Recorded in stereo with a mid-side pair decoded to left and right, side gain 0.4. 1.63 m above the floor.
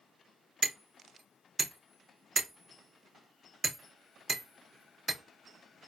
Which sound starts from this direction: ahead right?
Hammering, at 0.6 s.